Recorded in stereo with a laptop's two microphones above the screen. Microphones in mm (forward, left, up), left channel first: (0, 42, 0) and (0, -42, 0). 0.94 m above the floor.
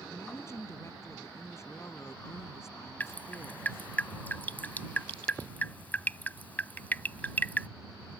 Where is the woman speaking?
35° left (ahead or behind).